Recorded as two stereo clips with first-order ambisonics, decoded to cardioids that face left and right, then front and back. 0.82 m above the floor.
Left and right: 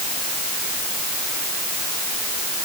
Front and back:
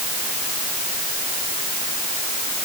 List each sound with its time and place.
Only background noise.